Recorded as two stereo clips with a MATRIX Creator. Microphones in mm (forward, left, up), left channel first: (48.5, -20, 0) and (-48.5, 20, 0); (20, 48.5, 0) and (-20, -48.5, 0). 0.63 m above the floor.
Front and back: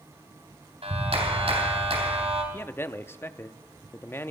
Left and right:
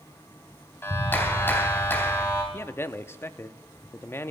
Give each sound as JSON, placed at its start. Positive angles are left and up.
{"t": 0.8, "sound": "a clap", "azimuth_deg": 135, "distance_m": 3.5}
{"t": 2.5, "sound": "a man speaking", "azimuth_deg": 20, "distance_m": 0.6}